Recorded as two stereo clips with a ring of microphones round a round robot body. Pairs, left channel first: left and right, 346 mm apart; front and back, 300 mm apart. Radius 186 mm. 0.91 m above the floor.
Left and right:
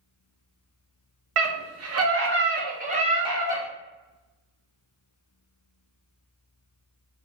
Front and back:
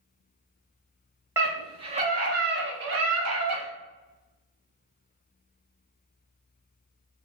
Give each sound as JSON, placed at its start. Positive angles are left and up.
{"t": 1.4, "sound": "a scream", "azimuth_deg": -100, "distance_m": 1.2}